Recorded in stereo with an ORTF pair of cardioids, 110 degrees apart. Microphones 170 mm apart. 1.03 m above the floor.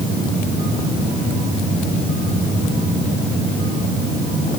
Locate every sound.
Only background noise.